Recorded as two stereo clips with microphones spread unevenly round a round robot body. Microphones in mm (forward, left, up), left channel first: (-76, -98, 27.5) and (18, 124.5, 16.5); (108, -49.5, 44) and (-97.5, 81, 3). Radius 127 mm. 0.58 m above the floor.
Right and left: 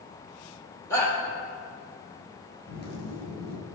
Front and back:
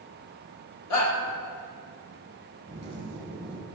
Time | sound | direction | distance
0.9 | a shout | 35° right | 2.5 m
2.7 | a zipper | 145° right | 2.5 m